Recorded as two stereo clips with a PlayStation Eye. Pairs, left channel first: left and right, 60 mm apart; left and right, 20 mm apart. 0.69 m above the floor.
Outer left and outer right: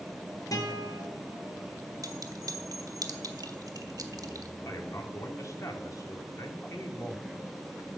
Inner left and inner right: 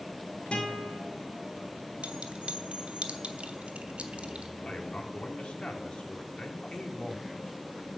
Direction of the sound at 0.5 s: 70° left (ahead or behind).